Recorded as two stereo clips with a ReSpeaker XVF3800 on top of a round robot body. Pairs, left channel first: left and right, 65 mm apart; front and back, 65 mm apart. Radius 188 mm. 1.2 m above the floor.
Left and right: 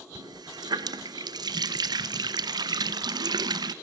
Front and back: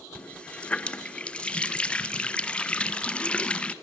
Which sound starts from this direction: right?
A running tap, at 0.1 s.